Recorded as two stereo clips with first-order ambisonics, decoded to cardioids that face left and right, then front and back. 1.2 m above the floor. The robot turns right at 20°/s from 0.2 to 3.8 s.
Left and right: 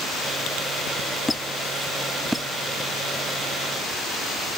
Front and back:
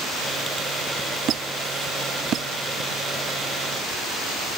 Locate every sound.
1.3 s a squeak: 170° left; by 2.5 s 165° right